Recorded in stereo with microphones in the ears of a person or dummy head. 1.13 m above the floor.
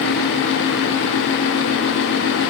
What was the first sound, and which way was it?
Only background noise.